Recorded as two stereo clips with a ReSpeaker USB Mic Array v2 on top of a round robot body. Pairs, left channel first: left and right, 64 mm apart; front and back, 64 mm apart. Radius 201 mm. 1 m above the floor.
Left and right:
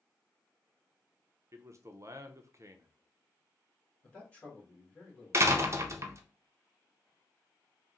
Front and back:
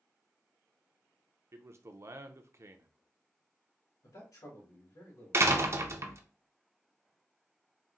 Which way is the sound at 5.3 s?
135° right.